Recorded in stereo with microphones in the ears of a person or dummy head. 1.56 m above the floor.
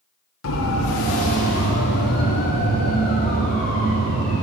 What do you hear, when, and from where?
0.4 s a siren: 75° left (ahead or behind), 2 m; by 4.4 s 35° left (ahead or behind), 5 m